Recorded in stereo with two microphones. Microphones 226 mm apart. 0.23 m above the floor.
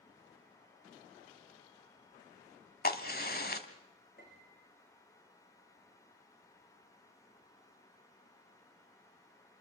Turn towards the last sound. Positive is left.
turn(degrees=40)  # may be behind; listen again after turning